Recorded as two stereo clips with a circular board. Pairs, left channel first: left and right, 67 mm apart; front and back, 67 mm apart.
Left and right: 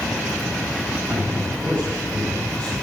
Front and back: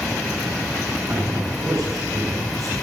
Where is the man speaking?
165° left, 5.5 m.